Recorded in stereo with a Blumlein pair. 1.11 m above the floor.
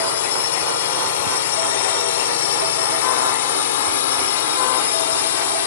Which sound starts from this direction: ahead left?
A drone, at 0.0 s.